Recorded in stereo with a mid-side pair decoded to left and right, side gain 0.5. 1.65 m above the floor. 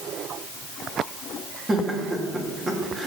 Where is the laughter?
25° right, 3 m.